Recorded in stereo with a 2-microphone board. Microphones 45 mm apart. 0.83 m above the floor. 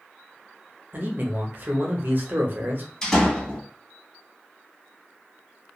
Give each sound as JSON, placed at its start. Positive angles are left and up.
{"t": 0.9, "sound": "a man speaking", "side_deg": -45, "distance_m": 0.7}
{"t": 3.0, "sound": "a door slam", "side_deg": 15, "distance_m": 0.9}